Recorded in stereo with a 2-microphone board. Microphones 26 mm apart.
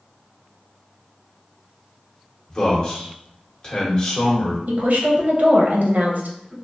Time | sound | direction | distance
2.5 | a man speaking | 30° left (ahead or behind) | 1.0 m
4.7 | a woman speaking | 80° right | 0.7 m